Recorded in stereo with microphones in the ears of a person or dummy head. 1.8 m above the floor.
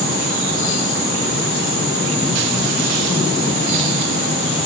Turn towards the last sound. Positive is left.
No sound to turn to.